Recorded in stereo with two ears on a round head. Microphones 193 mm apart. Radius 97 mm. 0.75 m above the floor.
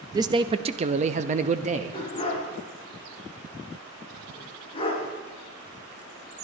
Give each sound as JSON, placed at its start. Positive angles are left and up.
{"t": 0.1, "sound": "a man speaking", "side_deg": -15, "distance_m": 0.6}
{"t": 1.9, "sound": "a dog barking", "side_deg": 25, "distance_m": 3.0}